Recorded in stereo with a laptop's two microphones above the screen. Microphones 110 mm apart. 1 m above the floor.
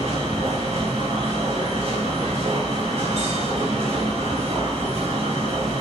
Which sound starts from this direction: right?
A machine running, at 0.0 s.